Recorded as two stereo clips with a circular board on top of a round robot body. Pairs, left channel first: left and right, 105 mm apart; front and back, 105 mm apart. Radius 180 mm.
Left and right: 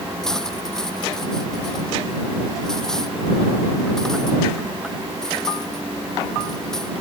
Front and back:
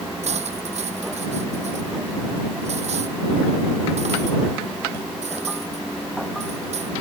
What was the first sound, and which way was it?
Cutlery clinking, 175° left.